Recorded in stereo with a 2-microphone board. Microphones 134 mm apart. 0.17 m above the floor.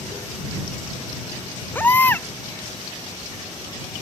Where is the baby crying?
15° left (ahead or behind).